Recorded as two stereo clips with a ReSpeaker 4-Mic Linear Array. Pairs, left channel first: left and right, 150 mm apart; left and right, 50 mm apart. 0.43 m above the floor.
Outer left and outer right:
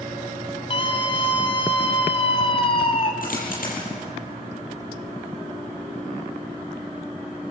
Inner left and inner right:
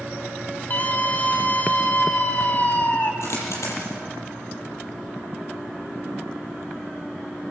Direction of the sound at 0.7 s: 35° left (ahead or behind).